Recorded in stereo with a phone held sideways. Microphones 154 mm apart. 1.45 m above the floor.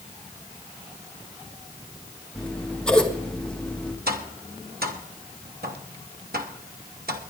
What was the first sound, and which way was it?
Scissors, 5° left (ahead or behind).